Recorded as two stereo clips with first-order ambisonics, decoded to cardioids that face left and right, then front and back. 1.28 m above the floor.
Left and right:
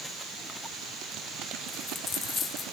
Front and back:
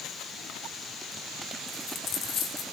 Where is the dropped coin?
25° left, 1.5 m.